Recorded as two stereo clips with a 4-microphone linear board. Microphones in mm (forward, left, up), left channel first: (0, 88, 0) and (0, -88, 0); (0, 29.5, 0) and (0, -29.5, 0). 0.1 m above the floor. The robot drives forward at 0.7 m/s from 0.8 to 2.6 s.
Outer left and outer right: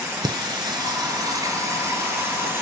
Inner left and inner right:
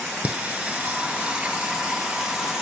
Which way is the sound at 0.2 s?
25° right (ahead or behind).